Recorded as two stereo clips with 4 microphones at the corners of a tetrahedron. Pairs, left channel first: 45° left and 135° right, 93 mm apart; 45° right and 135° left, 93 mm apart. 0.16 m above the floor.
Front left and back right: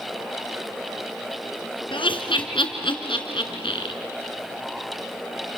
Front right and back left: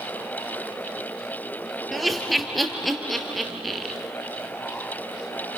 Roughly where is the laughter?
Ahead left.